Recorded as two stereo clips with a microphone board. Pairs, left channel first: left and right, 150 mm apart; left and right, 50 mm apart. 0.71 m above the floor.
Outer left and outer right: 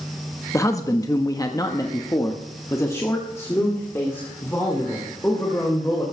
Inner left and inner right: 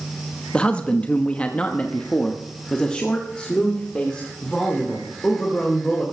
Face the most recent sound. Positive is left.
turn(degrees=15)  # may be behind; listen again after turning